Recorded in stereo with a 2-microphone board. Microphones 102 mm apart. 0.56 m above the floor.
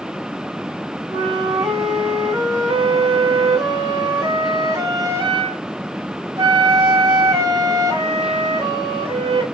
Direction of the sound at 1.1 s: 45° right (ahead or behind).